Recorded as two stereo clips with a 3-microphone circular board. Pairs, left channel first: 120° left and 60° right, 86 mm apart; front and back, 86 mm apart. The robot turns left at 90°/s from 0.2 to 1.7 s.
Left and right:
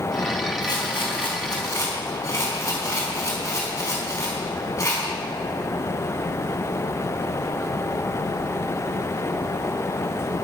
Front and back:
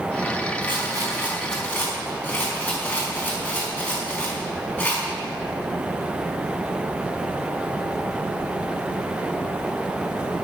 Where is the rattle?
165° left, 4.5 m; by 5.1 s 65° left, 4.5 m.